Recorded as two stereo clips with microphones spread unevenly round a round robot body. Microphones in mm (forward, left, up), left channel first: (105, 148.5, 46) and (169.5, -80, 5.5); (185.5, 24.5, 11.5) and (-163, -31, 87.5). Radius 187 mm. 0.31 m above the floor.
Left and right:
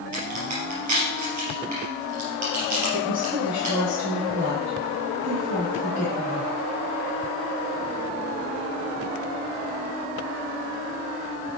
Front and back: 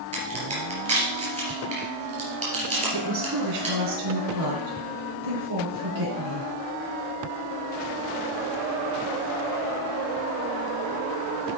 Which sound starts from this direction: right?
A crack, at 0.1 s.